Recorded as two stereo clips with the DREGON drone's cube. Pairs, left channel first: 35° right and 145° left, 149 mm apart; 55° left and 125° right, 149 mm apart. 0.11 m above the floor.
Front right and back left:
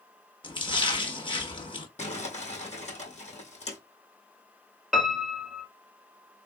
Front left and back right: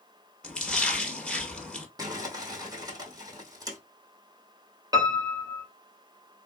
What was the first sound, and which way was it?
A splash, 25° right.